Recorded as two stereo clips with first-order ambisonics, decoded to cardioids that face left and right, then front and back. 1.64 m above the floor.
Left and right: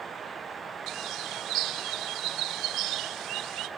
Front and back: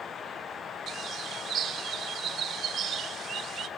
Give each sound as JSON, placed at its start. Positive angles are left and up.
{"t": 0.9, "sound": "a bird", "azimuth_deg": -125, "distance_m": 1.0}